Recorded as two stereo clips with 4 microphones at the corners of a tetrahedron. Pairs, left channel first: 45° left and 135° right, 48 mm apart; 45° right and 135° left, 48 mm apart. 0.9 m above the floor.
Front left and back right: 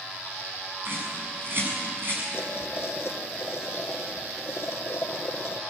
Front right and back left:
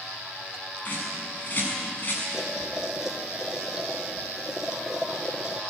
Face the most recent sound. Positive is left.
turn(degrees=60)